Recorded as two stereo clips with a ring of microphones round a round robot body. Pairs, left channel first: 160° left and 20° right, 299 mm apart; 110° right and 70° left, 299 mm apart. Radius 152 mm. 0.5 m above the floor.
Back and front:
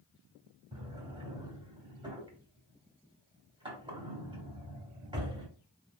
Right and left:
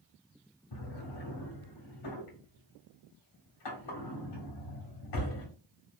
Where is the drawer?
100° right, 1.4 m.